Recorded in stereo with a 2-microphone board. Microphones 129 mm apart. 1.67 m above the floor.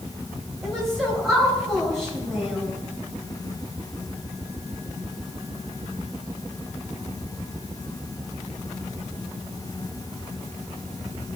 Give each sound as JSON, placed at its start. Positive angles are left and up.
{"t": 0.6, "sound": "a woman speaking", "side_deg": 0, "distance_m": 4.5}